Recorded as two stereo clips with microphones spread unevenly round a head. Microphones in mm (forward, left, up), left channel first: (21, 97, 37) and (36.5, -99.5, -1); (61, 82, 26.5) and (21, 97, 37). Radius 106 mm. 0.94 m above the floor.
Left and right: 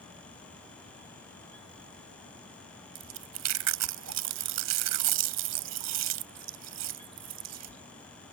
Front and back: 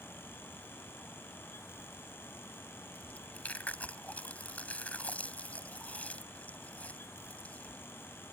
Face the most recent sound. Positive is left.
turn(degrees=-105)